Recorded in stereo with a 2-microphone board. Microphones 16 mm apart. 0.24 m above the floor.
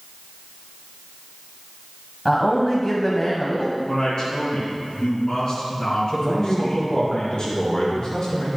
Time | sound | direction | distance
2.2 | a man speaking | 30° left (ahead or behind) | 1.2 m
3.9 | a woman speaking | 65° left (ahead or behind) | 2.5 m
6.1 | a man speaking | 65° left (ahead or behind) | 3.5 m